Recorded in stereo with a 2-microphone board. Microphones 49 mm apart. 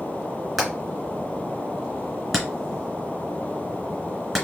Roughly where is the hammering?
Centre.